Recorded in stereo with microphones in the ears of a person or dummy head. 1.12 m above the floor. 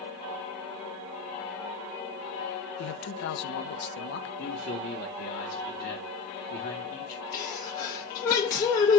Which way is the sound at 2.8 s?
60° left (ahead or behind).